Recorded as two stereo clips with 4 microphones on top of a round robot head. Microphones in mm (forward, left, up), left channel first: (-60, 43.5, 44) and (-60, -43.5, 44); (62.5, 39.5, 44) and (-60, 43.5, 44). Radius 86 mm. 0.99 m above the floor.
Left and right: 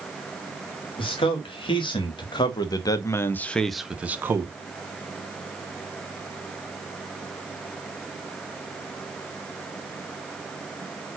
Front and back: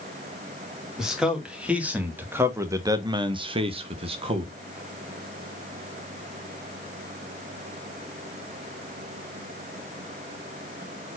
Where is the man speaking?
95° left, 2 m; by 4.5 s 140° right, 1.1 m.